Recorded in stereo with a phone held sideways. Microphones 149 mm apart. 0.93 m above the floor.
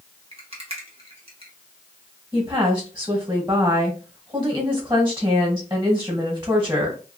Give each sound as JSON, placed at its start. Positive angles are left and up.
{"t": 0.3, "sound": "a rattle", "side_deg": -45, "distance_m": 1.1}
{"t": 2.3, "sound": "a woman speaking", "side_deg": -20, "distance_m": 1.3}